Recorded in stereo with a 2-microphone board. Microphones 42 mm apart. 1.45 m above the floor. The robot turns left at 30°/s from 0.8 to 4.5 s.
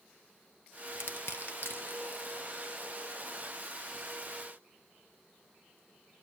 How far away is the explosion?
No explosion in this recording.